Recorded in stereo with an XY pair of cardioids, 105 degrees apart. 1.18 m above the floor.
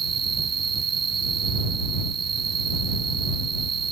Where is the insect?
45° right.